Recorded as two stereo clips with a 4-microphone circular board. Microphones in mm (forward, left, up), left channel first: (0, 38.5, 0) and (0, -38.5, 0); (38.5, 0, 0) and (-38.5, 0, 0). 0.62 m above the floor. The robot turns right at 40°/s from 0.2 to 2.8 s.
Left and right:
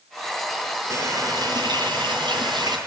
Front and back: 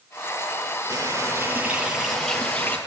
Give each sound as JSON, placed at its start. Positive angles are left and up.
{"t": 0.9, "sound": "a running tap", "azimuth_deg": -135, "distance_m": 8.5}